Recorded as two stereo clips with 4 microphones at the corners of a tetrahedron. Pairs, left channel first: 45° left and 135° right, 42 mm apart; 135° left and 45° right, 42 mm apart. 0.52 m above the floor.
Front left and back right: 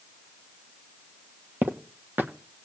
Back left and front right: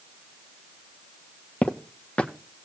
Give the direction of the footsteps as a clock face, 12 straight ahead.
5 o'clock.